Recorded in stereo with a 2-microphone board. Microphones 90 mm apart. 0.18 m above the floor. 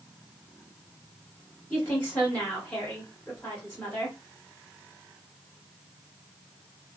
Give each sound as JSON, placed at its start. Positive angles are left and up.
{"t": 1.7, "sound": "a woman speaking", "side_deg": 5, "distance_m": 2.0}